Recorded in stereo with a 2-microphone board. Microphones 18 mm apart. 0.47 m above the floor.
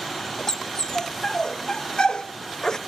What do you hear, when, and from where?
0.5 s a dog barking: 45° left (ahead or behind), 1.1 m; by 2.8 s 40° left (ahead or behind), 0.8 m